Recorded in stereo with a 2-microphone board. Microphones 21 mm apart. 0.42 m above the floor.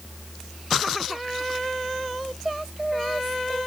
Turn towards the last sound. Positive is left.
No sound to turn to.